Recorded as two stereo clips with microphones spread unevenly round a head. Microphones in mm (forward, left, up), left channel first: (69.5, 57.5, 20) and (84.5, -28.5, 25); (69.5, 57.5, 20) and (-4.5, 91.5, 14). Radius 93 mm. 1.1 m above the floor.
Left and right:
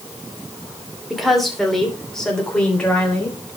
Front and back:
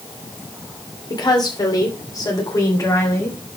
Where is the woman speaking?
10° left, 3 m; by 3.4 s 25° left, 4 m.